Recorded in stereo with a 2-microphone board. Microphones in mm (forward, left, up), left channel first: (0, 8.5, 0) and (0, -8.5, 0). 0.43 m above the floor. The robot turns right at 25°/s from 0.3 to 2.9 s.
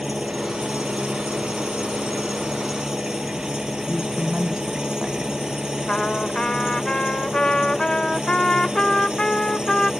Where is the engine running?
115° right; by 10.0 s 50° right.